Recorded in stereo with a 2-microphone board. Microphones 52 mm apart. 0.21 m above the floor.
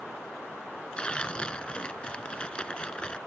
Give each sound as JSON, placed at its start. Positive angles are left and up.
{"t": 1.0, "sound": "tearing paper", "side_deg": 20}